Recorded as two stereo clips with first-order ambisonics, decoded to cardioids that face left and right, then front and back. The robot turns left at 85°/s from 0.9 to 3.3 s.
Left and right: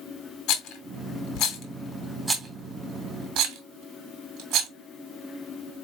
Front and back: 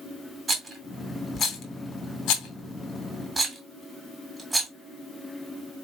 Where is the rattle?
110° left, 1.8 m; by 4.7 s 95° right, 1.8 m.